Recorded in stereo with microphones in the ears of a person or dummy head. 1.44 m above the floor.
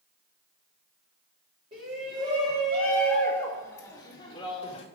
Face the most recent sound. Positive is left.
turn(degrees=30)  # may be behind; listen again after turning